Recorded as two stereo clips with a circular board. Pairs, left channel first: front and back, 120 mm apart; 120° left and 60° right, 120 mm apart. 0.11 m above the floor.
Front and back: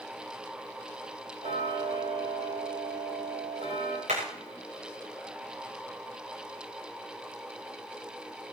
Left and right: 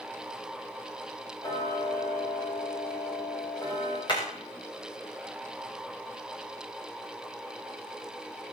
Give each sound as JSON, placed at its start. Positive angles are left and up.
{"t": 1.4, "sound": "ticking", "azimuth_deg": 180, "distance_m": 7.0}
{"t": 4.1, "sound": "hammering", "azimuth_deg": 170, "distance_m": 7.5}